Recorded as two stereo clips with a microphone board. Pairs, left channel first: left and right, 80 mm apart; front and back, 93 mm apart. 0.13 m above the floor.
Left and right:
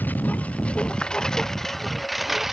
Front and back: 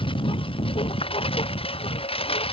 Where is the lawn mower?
20° left; by 2.5 s 5° right.